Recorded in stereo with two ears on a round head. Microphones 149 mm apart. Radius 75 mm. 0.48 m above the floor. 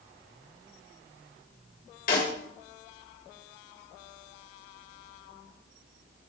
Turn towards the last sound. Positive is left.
turn(degrees=55)  # may be behind; listen again after turning